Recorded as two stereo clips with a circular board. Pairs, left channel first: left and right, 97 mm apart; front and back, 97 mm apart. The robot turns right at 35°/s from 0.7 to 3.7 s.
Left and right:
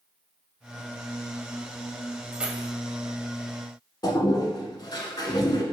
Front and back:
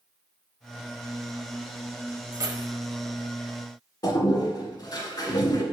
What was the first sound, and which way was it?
Keys jangling, 165° right.